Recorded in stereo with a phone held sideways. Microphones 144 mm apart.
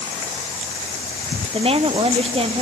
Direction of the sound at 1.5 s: 40° right (ahead or behind).